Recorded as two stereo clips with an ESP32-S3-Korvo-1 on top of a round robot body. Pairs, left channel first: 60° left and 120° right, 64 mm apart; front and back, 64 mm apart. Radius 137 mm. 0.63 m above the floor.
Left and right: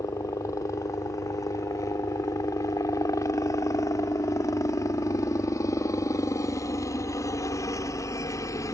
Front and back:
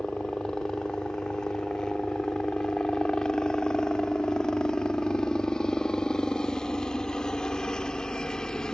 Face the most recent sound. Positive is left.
turn(degrees=80)